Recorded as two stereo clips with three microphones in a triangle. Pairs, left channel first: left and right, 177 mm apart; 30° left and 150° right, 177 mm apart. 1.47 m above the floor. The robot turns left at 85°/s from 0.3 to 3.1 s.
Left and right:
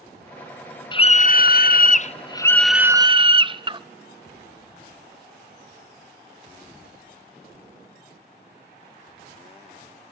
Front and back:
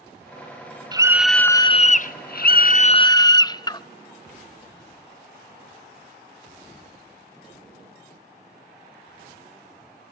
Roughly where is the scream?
Behind left.